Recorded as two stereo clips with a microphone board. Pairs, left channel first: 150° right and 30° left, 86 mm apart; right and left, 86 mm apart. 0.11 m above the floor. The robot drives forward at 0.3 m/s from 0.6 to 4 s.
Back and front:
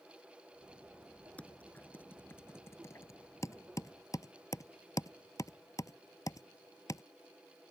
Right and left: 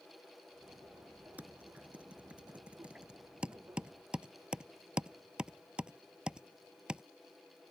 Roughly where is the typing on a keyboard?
Behind left.